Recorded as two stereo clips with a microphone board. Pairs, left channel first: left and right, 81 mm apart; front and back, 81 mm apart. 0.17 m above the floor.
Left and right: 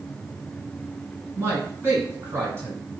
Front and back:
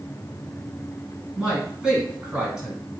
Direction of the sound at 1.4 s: 110° right.